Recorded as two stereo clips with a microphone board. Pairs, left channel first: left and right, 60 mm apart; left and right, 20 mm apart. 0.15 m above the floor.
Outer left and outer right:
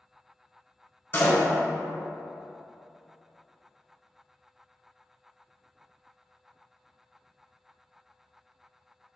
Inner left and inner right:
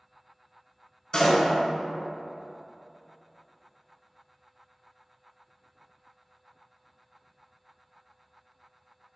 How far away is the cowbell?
I don't hear a cowbell.